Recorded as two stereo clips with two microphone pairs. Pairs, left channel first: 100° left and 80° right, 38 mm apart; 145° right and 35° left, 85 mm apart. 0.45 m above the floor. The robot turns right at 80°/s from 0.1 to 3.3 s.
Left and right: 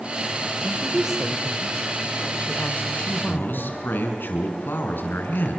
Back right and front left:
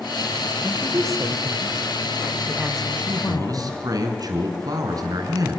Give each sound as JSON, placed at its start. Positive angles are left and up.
{"t": 0.6, "sound": "a woman speaking", "azimuth_deg": -45, "distance_m": 1.7}
{"t": 3.0, "sound": "a man speaking", "azimuth_deg": 50, "distance_m": 4.5}